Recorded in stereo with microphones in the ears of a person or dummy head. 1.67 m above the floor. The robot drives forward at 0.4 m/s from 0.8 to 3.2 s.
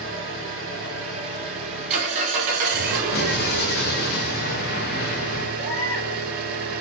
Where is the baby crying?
10° left (ahead or behind), 1.2 m.